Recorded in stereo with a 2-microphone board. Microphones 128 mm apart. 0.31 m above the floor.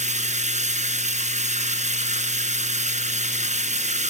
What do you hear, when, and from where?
0.0 s running water: 65° right (ahead or behind), 2 m